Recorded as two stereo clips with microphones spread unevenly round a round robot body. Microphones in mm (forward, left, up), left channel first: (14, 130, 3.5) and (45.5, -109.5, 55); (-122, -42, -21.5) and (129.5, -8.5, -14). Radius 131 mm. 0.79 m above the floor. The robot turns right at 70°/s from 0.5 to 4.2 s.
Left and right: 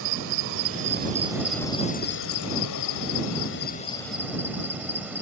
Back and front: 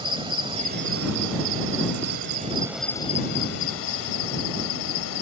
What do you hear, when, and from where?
0.0 s an insect: 65° right; by 5.2 s 165° right